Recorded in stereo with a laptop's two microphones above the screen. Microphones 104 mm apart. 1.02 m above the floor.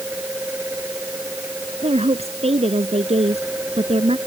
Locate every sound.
0.0 s a fan: 15° right (ahead or behind)
1.8 s a woman speaking: 75° right (ahead or behind)